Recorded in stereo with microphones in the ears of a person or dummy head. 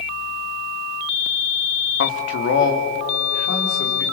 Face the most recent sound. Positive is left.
turn(degrees=55)  # may be behind; listen again after turning